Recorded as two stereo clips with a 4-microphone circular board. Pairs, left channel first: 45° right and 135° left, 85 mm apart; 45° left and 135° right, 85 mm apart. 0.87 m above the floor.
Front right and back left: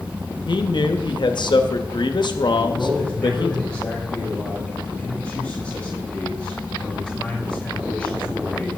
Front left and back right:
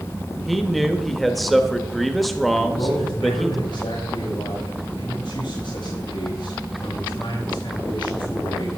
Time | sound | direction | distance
0.5 | a man speaking | 45° right | 1.1 m
2.6 | a man speaking | 30° left | 5.5 m